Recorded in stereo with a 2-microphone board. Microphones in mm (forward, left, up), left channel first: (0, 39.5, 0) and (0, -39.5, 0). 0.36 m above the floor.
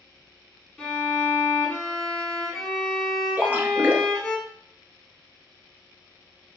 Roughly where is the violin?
Centre.